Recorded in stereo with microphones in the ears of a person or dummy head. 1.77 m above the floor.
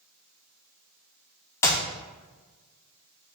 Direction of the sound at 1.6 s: 20° left (ahead or behind).